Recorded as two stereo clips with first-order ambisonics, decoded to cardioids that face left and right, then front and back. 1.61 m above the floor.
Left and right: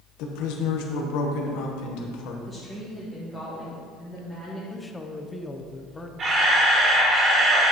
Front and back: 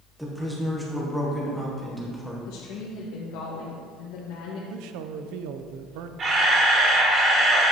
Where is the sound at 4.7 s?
170° left, 0.6 m.